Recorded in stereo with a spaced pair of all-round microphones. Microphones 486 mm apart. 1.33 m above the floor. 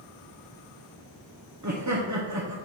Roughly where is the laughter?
Right.